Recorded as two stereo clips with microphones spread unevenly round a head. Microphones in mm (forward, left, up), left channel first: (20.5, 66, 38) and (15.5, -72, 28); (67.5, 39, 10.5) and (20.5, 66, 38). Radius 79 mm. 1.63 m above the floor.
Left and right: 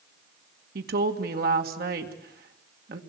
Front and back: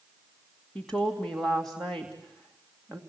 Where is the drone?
I don't hear a drone.